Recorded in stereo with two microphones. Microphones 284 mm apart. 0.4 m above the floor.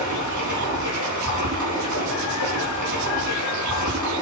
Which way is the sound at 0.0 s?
75° right (ahead or behind).